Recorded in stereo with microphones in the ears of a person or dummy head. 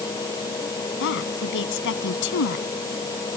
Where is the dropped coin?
I don't hear a dropped coin.